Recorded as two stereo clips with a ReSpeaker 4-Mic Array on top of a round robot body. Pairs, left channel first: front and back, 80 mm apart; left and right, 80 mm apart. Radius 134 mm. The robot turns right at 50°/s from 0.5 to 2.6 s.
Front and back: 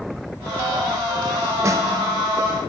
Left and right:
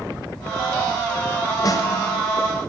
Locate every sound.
1.6 s a snare drum: 130° left, 0.9 m; by 1.9 s 140° left, 0.9 m